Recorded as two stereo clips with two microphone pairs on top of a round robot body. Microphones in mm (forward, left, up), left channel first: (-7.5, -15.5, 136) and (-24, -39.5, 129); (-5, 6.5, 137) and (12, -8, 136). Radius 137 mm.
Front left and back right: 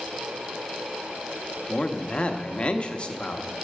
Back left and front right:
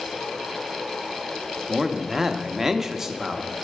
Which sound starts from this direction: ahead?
A man speaking, at 1.7 s.